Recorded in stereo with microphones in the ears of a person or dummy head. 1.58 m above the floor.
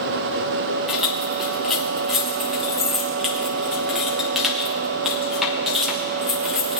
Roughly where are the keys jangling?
Centre.